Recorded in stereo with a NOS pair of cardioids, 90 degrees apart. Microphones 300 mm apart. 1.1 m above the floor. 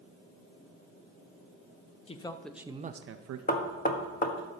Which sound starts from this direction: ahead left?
Knocking, at 3.5 s.